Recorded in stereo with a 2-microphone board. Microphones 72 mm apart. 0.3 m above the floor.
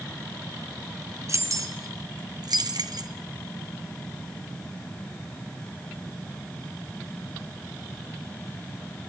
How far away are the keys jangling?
About 2 m.